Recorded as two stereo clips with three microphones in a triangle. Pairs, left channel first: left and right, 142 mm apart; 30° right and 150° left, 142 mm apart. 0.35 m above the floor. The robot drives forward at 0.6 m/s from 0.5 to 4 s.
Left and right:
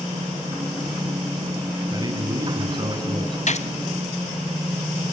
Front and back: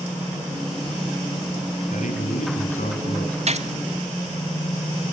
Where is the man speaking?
30° right, 4 m; by 3.4 s 40° right, 3.5 m.